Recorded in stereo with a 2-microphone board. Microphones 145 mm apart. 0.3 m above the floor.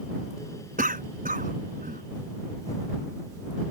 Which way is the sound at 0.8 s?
70° right (ahead or behind).